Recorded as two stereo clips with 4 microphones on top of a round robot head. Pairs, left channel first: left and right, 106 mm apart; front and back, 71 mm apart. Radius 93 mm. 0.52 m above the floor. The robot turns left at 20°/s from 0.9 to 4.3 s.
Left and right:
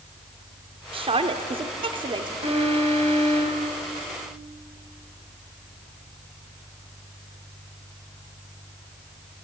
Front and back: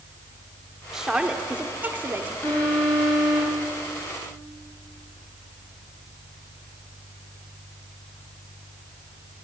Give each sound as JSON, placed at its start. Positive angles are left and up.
{"t": 0.9, "sound": "a woman speaking", "azimuth_deg": -95, "distance_m": 1.7}
{"t": 2.4, "sound": "an alarm", "azimuth_deg": -65, "distance_m": 6.0}